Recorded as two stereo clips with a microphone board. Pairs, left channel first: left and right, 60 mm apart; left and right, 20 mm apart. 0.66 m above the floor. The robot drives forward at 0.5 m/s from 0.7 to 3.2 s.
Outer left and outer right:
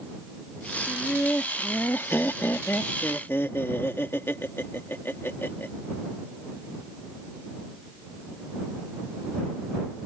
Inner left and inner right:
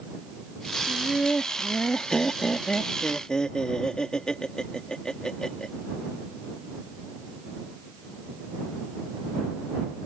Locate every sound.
0.9 s laughter: 30° left (ahead or behind); by 5.7 s 40° left (ahead or behind)